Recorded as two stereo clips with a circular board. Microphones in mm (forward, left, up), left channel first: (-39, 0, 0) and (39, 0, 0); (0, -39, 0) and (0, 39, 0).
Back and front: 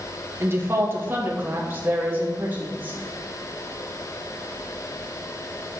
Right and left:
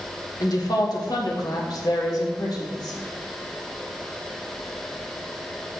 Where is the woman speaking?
55° right, 2 m; by 3.0 s 65° right, 4 m.